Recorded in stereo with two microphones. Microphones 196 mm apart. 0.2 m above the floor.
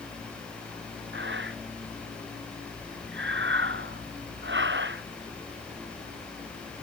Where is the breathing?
65° right (ahead or behind).